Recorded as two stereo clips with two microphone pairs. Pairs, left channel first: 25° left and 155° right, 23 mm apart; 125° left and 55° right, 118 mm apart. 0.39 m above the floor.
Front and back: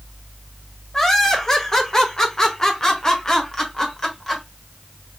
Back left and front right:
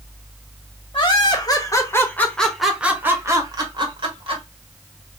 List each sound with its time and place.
0.9 s laughter: 95° left, 1.3 m; by 4.4 s 45° right, 1.3 m